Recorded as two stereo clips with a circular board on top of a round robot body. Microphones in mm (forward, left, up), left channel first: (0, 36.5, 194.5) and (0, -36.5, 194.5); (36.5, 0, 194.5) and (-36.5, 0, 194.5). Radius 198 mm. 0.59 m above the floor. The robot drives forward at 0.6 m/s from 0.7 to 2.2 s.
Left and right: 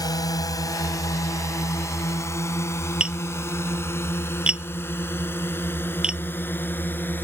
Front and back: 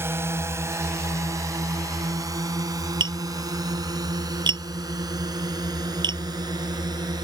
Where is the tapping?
170° right.